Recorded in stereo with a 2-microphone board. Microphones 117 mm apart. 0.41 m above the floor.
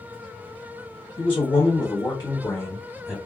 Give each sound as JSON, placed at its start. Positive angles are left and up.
{"t": 1.2, "sound": "a man speaking", "side_deg": 45, "distance_m": 1.4}